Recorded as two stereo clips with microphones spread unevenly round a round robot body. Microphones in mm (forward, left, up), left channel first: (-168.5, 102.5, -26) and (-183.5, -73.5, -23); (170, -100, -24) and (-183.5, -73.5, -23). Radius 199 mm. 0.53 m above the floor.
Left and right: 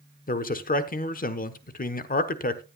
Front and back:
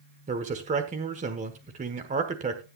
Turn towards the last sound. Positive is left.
turn(degrees=105)